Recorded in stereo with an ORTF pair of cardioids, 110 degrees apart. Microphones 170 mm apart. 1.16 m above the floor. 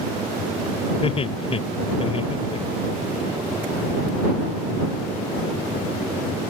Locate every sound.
1.0 s laughter: 35° left